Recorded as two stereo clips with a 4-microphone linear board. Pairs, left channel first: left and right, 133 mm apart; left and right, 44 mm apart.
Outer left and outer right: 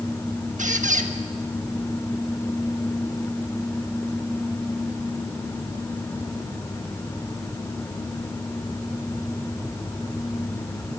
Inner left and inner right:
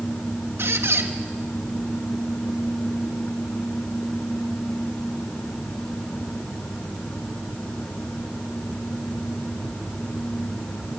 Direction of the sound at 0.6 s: 70° right (ahead or behind).